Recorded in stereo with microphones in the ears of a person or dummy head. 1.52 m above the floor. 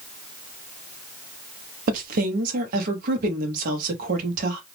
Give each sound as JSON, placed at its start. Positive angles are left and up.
{"t": 1.9, "sound": "a woman speaking", "side_deg": -50, "distance_m": 0.8}